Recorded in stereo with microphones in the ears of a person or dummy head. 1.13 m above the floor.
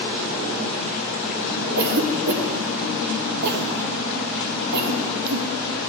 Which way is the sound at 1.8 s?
55° right (ahead or behind).